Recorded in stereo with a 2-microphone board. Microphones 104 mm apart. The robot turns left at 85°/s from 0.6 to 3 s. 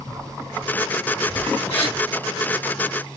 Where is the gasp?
80° left, 1.6 m; by 2.0 s 75° left (ahead or behind), 1.6 m.